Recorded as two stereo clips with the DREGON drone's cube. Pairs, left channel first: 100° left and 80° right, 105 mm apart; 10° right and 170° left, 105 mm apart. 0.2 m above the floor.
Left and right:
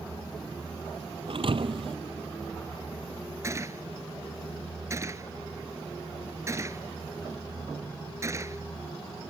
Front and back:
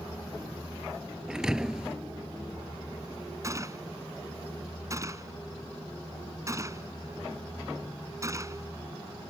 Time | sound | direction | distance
1.3 | a thud | 105° right | ?
3.4 | a gunshot | 135° right | ?